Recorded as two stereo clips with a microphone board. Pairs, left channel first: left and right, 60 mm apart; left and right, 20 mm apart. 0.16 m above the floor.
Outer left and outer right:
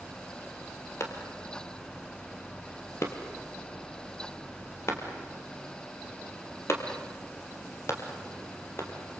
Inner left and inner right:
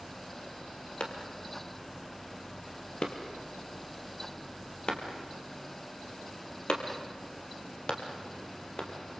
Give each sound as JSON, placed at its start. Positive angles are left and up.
{"t": 1.0, "sound": "a clap", "side_deg": 50, "distance_m": 3.0}